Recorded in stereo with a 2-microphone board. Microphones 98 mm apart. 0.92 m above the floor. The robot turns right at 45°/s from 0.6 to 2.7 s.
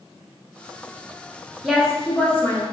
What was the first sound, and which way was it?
A woman speaking, straight ahead.